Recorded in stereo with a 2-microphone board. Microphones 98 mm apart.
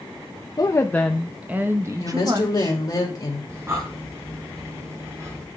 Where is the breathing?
30° right (ahead or behind), 3.5 m.